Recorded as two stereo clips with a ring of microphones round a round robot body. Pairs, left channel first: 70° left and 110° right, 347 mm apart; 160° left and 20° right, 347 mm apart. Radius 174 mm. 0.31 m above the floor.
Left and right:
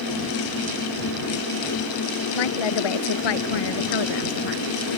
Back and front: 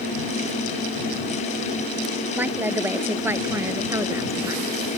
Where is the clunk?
I don't hear a clunk.